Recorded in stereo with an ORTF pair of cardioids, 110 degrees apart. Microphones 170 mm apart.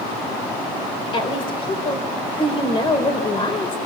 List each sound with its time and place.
1.1 s a woman speaking: 30° left, 4 m